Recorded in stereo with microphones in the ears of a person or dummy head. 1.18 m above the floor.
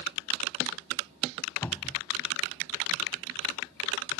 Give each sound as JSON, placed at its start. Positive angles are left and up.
{"t": 1.6, "sound": "a cupboard door", "side_deg": 10}